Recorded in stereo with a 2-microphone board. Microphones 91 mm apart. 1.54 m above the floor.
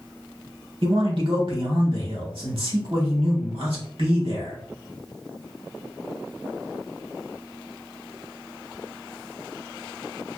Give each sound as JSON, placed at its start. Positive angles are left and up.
{"t": 0.8, "sound": "a man speaking", "side_deg": -70, "distance_m": 1.4}